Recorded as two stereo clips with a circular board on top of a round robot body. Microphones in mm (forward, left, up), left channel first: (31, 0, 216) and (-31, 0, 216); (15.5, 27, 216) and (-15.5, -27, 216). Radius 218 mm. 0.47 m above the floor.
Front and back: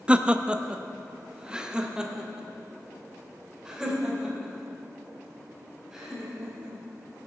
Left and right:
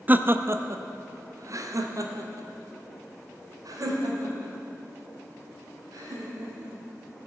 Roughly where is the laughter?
Behind right.